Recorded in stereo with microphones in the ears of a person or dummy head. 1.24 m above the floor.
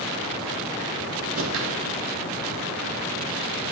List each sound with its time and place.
1.4 s a whoosh: 70° right (ahead or behind), 0.6 m